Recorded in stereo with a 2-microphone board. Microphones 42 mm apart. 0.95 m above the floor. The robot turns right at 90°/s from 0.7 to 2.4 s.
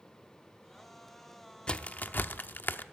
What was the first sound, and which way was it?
A crack, 25° left (ahead or behind).